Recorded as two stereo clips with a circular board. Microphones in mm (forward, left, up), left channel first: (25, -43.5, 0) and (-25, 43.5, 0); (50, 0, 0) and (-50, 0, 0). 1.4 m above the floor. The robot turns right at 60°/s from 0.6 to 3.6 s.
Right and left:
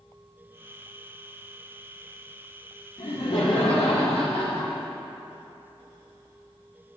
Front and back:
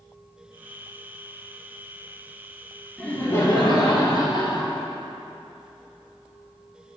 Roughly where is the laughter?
Right.